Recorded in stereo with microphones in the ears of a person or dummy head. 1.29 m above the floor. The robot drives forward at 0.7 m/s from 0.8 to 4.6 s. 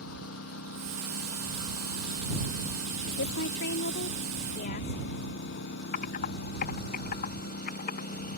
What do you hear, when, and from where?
0.0 s a lawn mower: 85° left; by 8.4 s 50° left (ahead or behind)
3.1 s a woman speaking: 70° left (ahead or behind); by 5.0 s 50° left (ahead or behind)
5.9 s typing on a keyboard: 50° left (ahead or behind)